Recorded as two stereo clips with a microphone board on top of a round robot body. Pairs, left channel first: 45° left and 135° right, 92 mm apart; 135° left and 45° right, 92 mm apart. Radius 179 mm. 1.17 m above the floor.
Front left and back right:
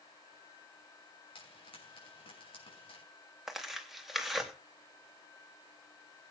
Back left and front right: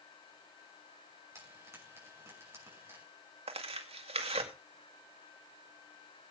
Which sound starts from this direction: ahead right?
Tearing paper, at 3.5 s.